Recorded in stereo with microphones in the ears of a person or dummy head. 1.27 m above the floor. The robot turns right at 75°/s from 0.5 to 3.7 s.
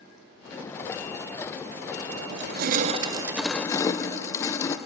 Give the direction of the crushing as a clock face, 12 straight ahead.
3 o'clock.